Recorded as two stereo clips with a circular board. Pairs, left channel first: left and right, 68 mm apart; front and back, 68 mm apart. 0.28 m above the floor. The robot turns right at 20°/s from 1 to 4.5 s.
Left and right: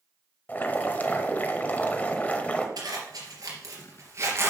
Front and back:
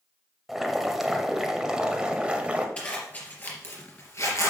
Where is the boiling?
100° left, 1.2 m; by 2.7 s 130° left, 1.2 m.